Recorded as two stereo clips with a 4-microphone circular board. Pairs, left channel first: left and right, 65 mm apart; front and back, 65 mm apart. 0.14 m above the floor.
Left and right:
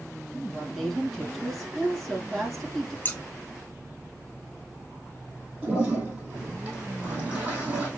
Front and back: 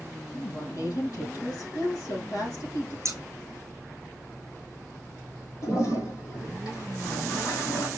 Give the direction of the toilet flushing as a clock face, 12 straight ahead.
1 o'clock.